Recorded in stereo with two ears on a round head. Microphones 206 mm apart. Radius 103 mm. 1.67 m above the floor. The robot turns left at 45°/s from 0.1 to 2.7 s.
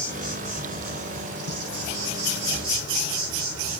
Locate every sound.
0.0 s an insect: 15° right, 0.9 m; by 3.8 s 130° right, 0.9 m